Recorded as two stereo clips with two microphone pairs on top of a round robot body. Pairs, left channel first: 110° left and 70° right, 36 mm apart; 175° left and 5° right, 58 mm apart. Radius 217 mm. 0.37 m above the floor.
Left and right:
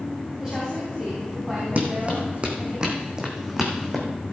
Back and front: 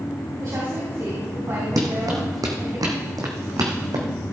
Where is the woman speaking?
Straight ahead, 4 m.